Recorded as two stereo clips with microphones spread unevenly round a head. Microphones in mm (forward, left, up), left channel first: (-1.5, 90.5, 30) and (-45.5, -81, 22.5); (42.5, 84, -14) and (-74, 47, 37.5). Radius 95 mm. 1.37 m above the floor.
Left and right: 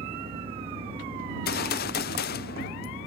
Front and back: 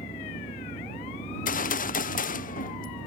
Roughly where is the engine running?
Ahead right.